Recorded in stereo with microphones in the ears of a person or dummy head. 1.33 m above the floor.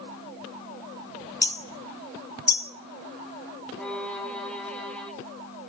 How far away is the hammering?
About 0.6 m.